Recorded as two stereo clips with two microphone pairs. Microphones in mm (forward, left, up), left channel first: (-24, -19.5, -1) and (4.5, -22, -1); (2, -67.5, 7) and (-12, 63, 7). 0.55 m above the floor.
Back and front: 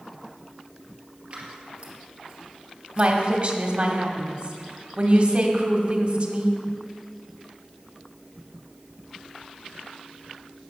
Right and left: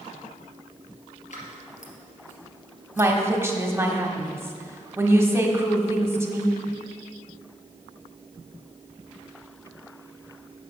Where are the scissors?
60° right, 2 m.